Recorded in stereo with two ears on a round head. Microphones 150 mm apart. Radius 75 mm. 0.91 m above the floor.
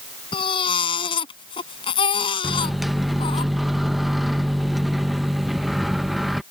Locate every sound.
0.3 s a baby crying: 35° left (ahead or behind)
2.4 s a microwave: centre (ahead or behind)